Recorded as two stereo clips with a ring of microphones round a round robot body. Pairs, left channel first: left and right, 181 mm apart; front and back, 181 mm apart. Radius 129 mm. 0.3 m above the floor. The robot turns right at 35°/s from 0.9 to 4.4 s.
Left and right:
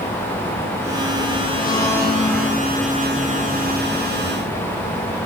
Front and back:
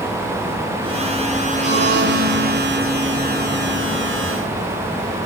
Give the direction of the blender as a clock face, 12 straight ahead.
7 o'clock.